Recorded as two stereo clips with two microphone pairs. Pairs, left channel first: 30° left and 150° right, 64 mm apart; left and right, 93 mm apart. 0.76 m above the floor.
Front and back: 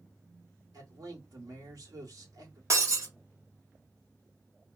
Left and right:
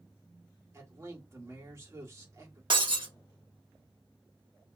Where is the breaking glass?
115° right, 1.0 m.